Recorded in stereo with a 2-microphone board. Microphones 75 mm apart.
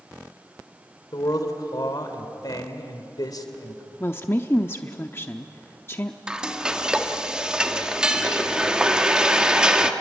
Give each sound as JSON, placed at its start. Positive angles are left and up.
{"t": 1.1, "sound": "a man speaking", "side_deg": 60, "distance_m": 2.5}
{"t": 4.0, "sound": "a woman speaking", "side_deg": 30, "distance_m": 0.8}
{"t": 6.3, "sound": "frying", "side_deg": -10, "distance_m": 1.3}